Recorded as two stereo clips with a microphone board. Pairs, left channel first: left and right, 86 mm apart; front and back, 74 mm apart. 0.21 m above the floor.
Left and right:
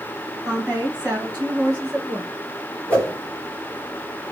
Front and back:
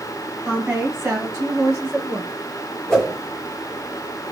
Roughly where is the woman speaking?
Behind right.